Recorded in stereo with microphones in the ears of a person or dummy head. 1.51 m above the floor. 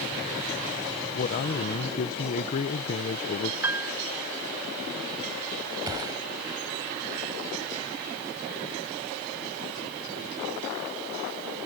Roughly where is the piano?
Centre.